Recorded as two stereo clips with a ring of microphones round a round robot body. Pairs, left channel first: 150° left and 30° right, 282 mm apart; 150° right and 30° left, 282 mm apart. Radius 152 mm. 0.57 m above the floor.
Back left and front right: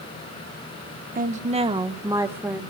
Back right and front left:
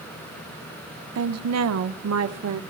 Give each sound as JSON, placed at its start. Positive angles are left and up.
{"t": 1.1, "sound": "a woman speaking", "azimuth_deg": 20, "distance_m": 1.1}